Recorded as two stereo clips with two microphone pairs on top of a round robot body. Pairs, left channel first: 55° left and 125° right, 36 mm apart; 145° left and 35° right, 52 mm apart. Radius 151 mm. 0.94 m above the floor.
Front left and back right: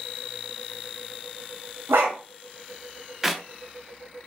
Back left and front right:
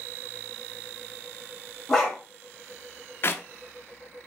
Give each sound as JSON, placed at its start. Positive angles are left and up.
{"t": 1.9, "sound": "a dog barking", "azimuth_deg": -135, "distance_m": 1.2}
{"t": 3.2, "sound": "a clap", "azimuth_deg": 160, "distance_m": 0.9}